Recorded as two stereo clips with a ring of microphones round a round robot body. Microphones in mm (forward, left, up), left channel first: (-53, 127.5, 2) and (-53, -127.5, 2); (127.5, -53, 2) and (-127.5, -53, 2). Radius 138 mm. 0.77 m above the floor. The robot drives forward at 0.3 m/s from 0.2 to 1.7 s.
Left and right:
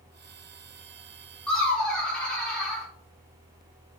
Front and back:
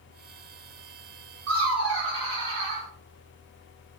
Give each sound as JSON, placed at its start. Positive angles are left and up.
{"t": 1.5, "sound": "laughter", "azimuth_deg": 175, "distance_m": 1.5}